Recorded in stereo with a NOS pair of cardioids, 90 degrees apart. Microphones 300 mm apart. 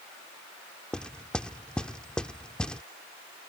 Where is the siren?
I don't hear a siren.